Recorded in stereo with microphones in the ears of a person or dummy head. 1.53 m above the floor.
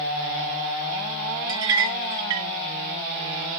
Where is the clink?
20° right (ahead or behind), 1.1 m.